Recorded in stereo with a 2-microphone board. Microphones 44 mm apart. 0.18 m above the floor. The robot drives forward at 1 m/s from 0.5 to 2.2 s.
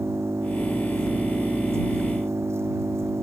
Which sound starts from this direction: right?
An engine running, at 0.0 s.